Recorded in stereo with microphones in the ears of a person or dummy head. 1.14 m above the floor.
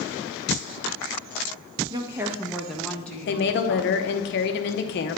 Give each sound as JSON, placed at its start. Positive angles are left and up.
{"t": 1.9, "sound": "a woman speaking", "side_deg": -25, "distance_m": 0.6}
{"t": 3.3, "sound": "a woman speaking", "side_deg": 45, "distance_m": 0.7}